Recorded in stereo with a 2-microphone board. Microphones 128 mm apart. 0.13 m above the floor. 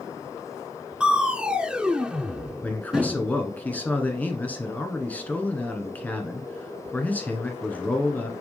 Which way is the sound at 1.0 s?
5° right (ahead or behind).